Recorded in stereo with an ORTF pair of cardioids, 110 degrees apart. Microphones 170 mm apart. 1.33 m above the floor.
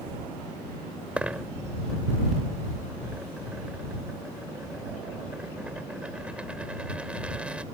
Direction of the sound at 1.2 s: 5° right.